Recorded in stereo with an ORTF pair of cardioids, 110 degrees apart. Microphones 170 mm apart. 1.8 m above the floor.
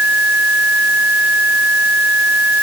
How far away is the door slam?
No door slam in this recording.